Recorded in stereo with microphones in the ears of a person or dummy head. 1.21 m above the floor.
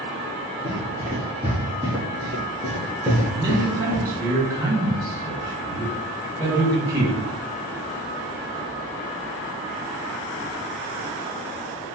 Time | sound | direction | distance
0.6 | running footsteps | 20° right (ahead or behind) | 1.6 m
3.3 | a man speaking | 25° right (ahead or behind) | 1.3 m